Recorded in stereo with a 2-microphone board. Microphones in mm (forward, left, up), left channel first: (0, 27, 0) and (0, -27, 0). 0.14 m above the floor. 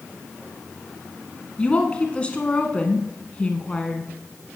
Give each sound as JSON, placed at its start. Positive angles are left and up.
{"t": 1.6, "sound": "a woman speaking", "side_deg": 20, "distance_m": 1.1}